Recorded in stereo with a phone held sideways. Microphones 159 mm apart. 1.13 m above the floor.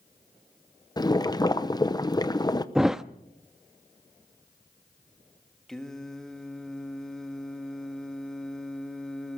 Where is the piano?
I don't hear a piano.